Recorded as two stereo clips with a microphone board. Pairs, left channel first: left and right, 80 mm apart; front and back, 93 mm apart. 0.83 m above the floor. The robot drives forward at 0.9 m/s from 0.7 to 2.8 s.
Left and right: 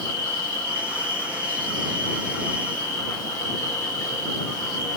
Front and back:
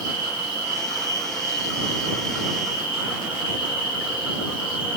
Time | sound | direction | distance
0.0 | an insect | 35° left | 2 m